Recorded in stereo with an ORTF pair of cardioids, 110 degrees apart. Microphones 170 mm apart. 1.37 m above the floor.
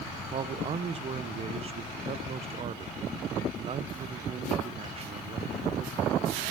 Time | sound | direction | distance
0.3 | a man speaking | 35° right | 0.8 m